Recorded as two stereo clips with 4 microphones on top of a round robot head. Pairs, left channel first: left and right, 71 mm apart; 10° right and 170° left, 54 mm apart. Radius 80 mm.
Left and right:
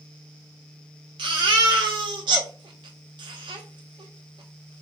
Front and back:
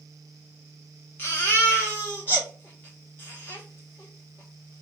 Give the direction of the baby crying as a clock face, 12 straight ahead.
2 o'clock.